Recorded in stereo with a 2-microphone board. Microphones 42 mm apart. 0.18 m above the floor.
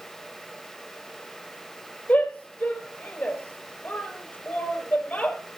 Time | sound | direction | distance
2.1 | a shout | 35° left (ahead or behind) | 5 m